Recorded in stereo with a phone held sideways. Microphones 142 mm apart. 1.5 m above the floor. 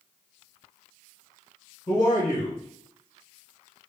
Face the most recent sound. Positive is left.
turn(degrees=50)  # may be behind; listen again after turning